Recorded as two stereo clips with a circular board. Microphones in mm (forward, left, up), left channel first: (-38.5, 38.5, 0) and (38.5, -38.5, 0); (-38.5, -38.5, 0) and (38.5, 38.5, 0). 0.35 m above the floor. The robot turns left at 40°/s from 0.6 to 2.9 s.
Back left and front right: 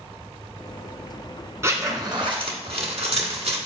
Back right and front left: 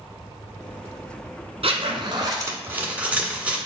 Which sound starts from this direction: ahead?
A zipper, at 1.6 s.